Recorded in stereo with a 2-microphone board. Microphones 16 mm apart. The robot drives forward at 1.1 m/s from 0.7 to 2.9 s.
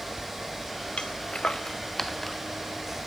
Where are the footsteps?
80° left, 1.0 m; by 3.0 s centre (ahead or behind), 2.5 m.